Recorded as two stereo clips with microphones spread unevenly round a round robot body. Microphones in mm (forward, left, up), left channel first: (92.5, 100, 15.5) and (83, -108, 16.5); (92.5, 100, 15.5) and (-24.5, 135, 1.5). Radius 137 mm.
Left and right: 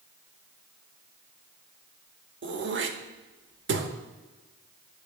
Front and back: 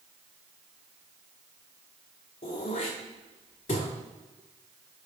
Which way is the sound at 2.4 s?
65° right.